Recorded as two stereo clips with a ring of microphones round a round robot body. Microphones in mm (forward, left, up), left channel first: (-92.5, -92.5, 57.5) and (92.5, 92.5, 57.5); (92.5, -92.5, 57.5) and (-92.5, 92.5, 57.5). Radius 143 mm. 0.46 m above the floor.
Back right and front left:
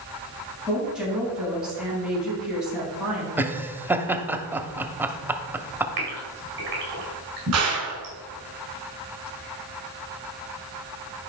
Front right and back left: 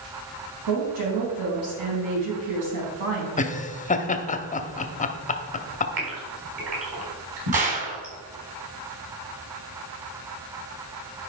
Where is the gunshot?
75° left, 2.5 m.